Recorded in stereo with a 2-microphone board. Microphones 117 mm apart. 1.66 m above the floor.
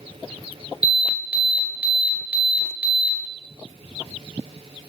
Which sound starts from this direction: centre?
An alarm, at 0.8 s.